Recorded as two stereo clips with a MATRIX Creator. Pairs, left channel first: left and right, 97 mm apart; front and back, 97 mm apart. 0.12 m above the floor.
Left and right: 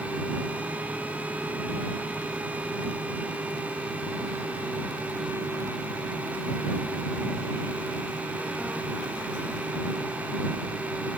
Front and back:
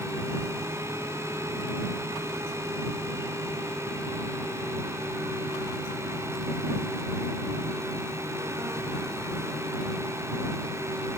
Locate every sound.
Only background noise.